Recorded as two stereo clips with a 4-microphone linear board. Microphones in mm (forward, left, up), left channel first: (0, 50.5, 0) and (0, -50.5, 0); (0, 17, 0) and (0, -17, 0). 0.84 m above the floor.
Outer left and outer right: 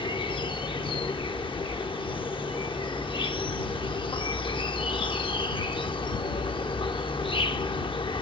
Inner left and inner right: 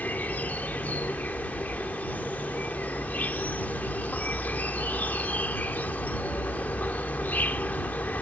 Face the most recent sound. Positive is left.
turn(degrees=55)  # may be behind; listen again after turning